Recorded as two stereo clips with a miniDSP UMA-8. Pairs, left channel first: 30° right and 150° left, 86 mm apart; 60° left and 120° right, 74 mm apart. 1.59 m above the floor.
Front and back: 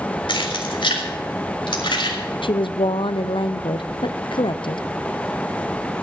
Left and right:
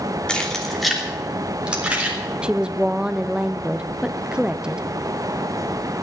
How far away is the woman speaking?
About 0.6 m.